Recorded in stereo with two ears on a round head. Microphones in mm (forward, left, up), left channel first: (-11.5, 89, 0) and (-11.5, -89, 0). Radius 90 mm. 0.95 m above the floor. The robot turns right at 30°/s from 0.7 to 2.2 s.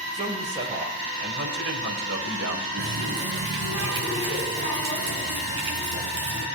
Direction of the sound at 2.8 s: 70° right (ahead or behind).